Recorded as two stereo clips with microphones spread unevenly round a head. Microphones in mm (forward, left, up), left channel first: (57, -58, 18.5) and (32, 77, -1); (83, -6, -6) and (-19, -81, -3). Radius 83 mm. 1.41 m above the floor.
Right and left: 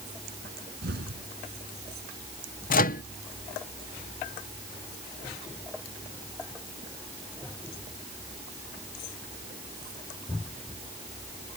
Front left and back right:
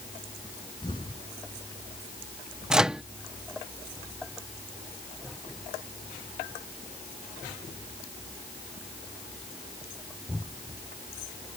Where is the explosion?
100° left.